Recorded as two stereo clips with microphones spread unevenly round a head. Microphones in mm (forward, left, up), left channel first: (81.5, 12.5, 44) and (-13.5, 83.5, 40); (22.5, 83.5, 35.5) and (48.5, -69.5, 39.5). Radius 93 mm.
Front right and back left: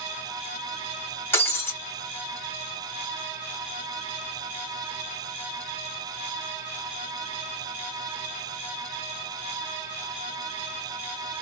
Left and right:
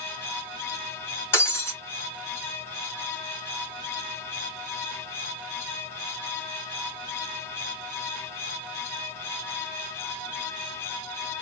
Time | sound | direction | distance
1.3 | breaking glass | 30° left | 1.2 m